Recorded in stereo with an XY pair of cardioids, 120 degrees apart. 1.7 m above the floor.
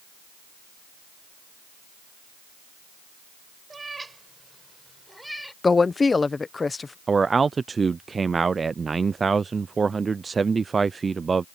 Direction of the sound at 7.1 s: 25° right.